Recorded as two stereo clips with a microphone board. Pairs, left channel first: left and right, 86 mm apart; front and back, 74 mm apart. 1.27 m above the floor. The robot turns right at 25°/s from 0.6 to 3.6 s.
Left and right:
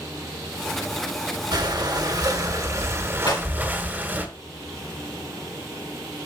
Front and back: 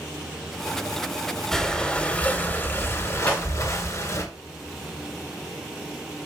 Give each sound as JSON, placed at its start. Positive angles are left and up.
{"t": 1.5, "sound": "breathing", "azimuth_deg": -85, "distance_m": 1.5}
{"t": 3.3, "sound": "breaking glass", "azimuth_deg": 70, "distance_m": 4.0}